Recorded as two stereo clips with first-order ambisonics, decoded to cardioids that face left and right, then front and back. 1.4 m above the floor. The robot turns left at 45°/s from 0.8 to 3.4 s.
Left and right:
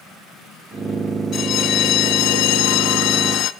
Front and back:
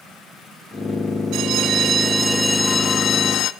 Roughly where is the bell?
Behind left.